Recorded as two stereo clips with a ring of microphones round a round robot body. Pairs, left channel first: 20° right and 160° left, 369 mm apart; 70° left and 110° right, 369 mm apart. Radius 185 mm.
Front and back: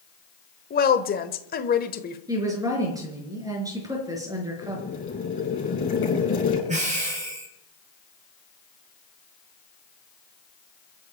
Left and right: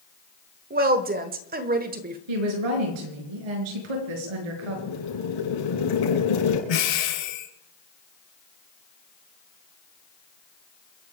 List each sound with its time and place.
0.7 s a woman speaking: 65° right, 1.4 m
2.3 s a woman speaking: 120° right, 5 m
4.6 s boiling: 40° left, 7 m
6.7 s breathing: 85° left, 4.5 m